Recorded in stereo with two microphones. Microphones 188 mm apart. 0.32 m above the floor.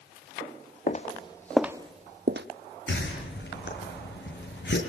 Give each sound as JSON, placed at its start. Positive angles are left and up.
{"t": 0.9, "sound": "footsteps", "side_deg": 40, "distance_m": 1.0}
{"t": 2.9, "sound": "a whoosh", "side_deg": 75, "distance_m": 6.5}